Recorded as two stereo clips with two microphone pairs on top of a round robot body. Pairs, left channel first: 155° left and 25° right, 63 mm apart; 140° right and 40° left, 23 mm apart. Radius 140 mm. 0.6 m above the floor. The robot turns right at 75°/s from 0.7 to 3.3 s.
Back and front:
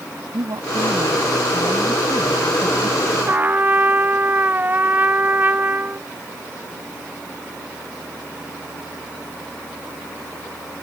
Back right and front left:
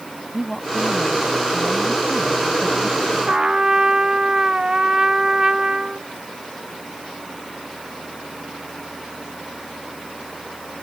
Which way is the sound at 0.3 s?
60° right.